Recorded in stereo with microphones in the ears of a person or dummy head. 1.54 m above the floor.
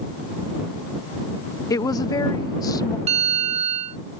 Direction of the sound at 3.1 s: 35° right (ahead or behind).